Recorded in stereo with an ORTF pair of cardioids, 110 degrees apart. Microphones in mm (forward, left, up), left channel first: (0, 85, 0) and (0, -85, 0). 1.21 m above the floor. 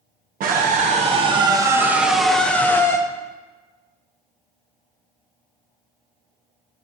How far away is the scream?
About 1.1 m.